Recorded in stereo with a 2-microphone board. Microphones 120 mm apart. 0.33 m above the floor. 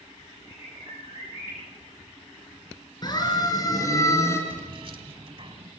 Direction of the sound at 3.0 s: 35° left (ahead or behind).